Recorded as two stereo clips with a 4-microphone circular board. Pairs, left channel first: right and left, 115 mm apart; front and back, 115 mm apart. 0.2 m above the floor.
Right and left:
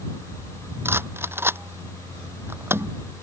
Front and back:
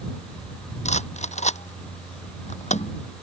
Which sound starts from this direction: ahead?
A rattle, at 0.8 s.